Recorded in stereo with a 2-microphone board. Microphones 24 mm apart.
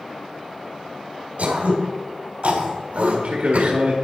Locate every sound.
1.4 s throat clearing: 65° right (ahead or behind), 2 m
3.0 s a man speaking: 65° right (ahead or behind), 1.9 m